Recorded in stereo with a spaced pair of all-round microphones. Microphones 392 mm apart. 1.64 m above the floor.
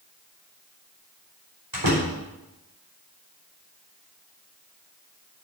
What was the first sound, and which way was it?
A door slam, 60° right (ahead or behind).